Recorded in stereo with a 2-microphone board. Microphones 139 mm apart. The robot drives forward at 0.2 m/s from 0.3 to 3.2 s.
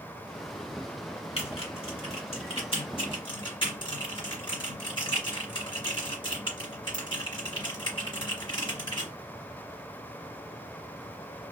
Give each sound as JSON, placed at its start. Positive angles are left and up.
{"t": 1.4, "sound": "typing on a keyboard", "side_deg": 45, "distance_m": 1.2}